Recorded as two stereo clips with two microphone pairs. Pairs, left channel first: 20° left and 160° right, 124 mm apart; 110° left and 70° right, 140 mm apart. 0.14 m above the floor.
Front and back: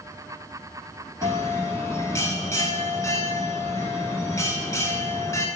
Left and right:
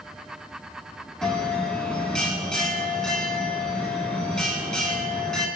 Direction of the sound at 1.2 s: 30° left.